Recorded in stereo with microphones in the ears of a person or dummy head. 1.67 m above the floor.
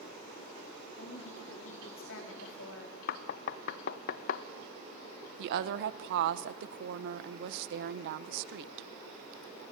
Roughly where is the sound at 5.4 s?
Right.